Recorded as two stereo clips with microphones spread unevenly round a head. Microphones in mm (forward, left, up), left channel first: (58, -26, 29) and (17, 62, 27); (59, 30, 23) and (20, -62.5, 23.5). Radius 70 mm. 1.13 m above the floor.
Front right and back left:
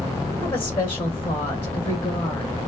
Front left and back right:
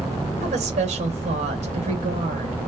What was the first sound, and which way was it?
A woman speaking, 135° right.